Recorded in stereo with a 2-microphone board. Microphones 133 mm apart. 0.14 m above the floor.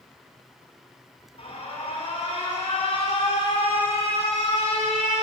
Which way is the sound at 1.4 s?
45° left (ahead or behind).